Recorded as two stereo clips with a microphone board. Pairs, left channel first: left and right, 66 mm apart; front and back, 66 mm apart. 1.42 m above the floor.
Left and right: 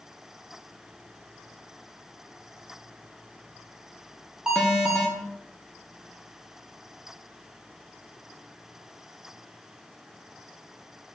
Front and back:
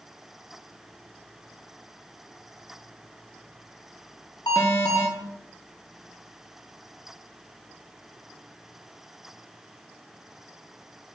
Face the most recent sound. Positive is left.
turn(degrees=-10)